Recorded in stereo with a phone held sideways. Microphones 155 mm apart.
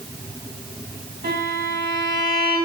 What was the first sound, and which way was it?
A violin, 75° right (ahead or behind).